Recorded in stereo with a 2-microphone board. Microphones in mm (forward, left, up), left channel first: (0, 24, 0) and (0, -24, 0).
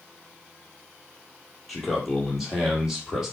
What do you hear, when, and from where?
1.7 s a man speaking: centre (ahead or behind), 4 m; by 3.4 s 5° right (ahead or behind), 5 m